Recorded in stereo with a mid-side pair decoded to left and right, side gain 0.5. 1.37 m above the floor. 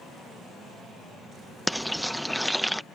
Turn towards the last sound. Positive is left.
turn(degrees=0)